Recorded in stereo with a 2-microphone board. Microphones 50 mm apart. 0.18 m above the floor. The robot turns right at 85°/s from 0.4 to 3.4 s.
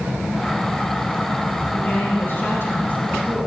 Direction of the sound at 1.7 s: 35° left.